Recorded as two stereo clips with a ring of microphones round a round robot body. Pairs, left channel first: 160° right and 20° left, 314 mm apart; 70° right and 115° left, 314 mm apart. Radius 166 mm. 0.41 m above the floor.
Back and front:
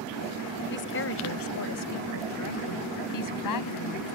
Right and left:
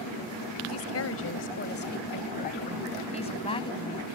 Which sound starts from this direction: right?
A woman speaking, at 0.7 s.